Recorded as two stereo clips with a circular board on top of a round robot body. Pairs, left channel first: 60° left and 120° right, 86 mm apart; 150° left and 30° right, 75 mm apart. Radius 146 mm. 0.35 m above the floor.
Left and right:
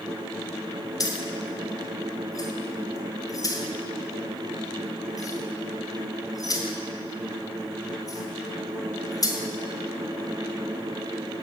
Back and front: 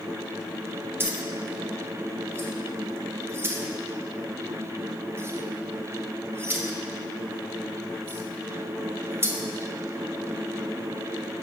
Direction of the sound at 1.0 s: 25° left.